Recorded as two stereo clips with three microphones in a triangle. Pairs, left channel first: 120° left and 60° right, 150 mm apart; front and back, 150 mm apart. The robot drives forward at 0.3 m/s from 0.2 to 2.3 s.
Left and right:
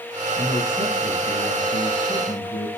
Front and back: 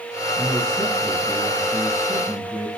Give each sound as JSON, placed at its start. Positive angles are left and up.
{"t": 0.4, "sound": "a man speaking", "azimuth_deg": 95, "distance_m": 3.0}